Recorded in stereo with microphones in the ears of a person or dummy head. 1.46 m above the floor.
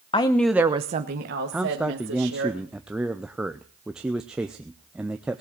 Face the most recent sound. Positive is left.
turn(degrees=-5)  # may be behind; listen again after turning